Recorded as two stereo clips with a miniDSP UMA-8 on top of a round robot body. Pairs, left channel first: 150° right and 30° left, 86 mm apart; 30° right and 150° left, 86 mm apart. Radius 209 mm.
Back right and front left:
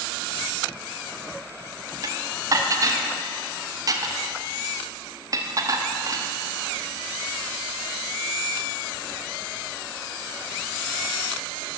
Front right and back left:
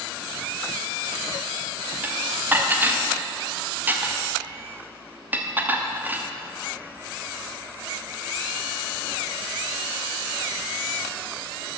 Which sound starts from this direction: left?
Dishes clattering, at 2.0 s.